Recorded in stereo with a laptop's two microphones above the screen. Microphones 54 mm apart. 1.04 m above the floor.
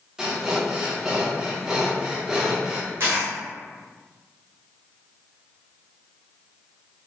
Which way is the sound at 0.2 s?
15° right (ahead or behind).